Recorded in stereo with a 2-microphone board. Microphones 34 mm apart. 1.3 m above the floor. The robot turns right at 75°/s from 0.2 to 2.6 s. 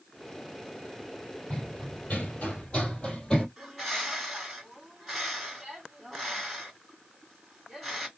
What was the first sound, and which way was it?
Running footsteps, 20° left (ahead or behind).